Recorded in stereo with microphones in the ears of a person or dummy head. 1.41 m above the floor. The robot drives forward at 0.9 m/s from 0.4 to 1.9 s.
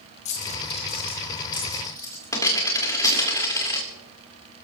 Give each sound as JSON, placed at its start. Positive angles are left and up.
{"t": 0.2, "sound": "a dropped coin", "side_deg": 45, "distance_m": 1.3}